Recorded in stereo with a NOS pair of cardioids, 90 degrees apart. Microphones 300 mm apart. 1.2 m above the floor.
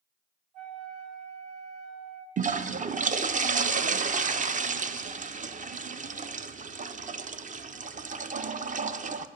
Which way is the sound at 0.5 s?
65° right.